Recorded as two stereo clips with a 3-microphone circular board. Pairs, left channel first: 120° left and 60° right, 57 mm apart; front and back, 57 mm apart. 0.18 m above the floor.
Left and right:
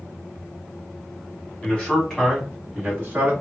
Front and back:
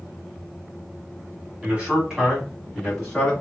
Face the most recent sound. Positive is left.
turn(degrees=-70)